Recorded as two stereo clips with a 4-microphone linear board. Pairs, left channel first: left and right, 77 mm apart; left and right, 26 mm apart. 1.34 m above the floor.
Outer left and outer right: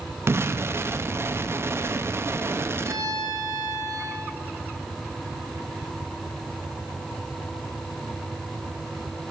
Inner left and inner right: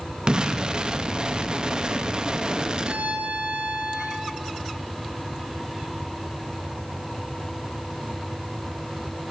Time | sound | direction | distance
0.3 | an explosion | 35° right (ahead or behind) | 0.6 m
2.8 | a violin | 55° right (ahead or behind) | 1.6 m